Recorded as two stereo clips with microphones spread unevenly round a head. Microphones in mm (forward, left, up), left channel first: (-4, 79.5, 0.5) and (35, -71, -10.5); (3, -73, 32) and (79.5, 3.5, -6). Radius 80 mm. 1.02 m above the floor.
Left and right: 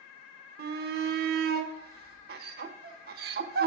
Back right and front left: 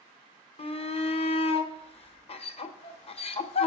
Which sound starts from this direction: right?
A shout, at 0.6 s.